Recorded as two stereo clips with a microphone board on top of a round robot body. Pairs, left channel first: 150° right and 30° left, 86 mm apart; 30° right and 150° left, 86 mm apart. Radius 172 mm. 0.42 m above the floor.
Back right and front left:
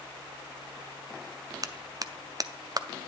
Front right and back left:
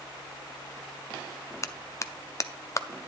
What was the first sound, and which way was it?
A clap, 10° left.